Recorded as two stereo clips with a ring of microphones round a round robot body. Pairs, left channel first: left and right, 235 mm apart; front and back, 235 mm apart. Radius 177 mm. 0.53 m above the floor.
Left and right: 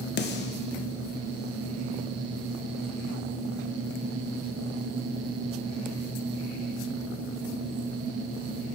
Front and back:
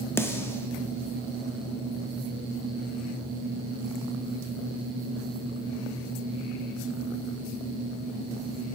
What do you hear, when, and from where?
0.2 s a snare drum: 80° left, 0.5 m